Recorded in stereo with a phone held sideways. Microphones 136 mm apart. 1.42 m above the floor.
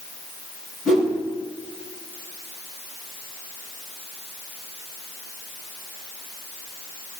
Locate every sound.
0.8 s a whoosh: 10° right (ahead or behind), 4.5 m